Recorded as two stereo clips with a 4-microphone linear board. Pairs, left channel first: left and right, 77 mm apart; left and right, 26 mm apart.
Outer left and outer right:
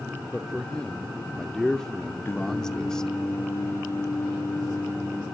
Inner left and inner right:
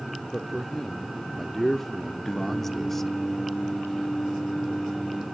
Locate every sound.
0.3 s a man speaking: 10° left (ahead or behind), 0.8 m
2.2 s singing: 30° left (ahead or behind), 2.5 m